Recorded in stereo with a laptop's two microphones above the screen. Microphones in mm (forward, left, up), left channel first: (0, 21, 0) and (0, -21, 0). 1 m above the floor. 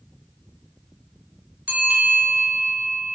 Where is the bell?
40° right (ahead or behind), 3.5 m.